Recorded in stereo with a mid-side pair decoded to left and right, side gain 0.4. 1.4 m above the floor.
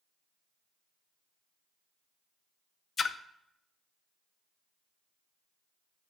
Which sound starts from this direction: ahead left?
A splash, at 3.0 s.